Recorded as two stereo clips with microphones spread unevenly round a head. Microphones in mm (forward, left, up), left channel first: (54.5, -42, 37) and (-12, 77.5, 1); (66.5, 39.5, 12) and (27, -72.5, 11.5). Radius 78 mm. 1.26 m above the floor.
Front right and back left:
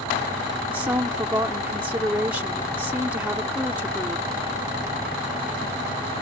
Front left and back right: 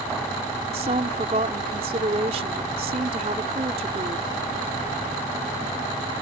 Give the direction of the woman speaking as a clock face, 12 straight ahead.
5 o'clock.